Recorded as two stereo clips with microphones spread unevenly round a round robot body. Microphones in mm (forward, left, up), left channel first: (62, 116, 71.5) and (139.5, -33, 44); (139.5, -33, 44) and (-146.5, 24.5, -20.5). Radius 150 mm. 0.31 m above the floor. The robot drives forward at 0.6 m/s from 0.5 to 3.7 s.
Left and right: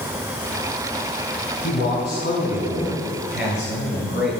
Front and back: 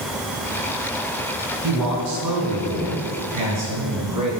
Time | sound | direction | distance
1.6 | a man speaking | 165° left | 4 m